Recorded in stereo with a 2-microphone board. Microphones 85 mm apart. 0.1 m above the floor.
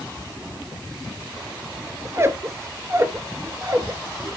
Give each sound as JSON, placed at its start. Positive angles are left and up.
{"t": 2.0, "sound": "a squeak", "side_deg": -35, "distance_m": 0.9}